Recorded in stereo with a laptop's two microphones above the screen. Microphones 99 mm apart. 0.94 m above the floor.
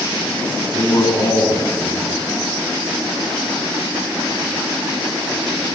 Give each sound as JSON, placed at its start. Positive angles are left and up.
{"t": 0.7, "sound": "a man speaking", "side_deg": 40, "distance_m": 9.5}